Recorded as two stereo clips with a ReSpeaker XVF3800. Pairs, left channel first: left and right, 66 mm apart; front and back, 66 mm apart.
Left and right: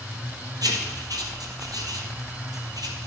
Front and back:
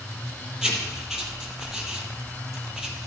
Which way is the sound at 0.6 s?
100° right.